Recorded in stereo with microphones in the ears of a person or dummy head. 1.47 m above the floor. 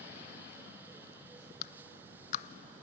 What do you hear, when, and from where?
1.6 s a clap: 50° left (ahead or behind), 0.7 m